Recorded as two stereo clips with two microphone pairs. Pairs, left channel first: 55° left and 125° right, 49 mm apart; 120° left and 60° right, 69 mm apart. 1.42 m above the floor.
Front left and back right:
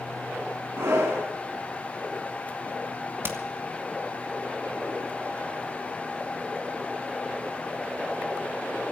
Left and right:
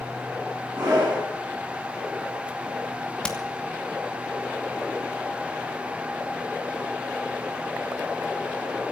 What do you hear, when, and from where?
0.8 s a scream: 115° right, 9.5 m
3.2 s hammering: 165° right, 2.5 m